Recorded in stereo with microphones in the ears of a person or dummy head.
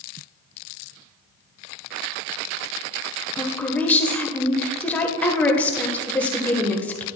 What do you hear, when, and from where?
3.4 s a woman speaking: 10° left (ahead or behind), 1.1 m